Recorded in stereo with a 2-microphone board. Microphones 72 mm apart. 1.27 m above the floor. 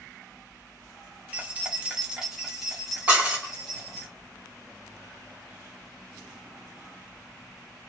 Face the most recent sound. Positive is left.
turn(degrees=-20)  # may be behind; listen again after turning